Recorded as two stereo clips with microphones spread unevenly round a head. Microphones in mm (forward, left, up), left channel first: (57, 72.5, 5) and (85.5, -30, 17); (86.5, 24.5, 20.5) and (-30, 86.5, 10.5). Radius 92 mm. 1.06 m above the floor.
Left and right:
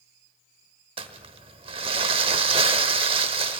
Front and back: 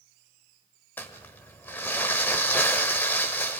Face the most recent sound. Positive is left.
turn(degrees=-105)